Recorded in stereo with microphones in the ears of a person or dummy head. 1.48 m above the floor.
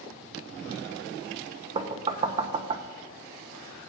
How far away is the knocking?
About 0.7 m.